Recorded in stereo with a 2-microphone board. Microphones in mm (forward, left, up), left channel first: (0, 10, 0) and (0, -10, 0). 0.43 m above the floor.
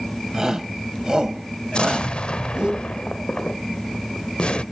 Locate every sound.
0.3 s a shout: 20° right (ahead or behind), 3 m; by 2.7 s 45° right (ahead or behind), 3 m
1.7 s an explosion: 65° left (ahead or behind), 0.7 m